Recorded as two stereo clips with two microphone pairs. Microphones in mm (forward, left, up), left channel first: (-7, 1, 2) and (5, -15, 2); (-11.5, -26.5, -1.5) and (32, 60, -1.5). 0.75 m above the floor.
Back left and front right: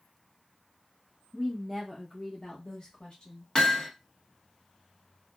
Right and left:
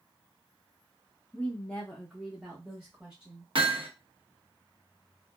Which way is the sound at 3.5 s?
75° left.